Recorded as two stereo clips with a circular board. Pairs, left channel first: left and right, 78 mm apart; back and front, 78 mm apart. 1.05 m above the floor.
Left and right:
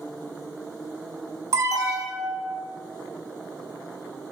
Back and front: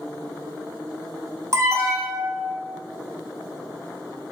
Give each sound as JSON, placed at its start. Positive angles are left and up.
{"t": 1.5, "sound": "an alarm", "azimuth_deg": -45, "distance_m": 0.8}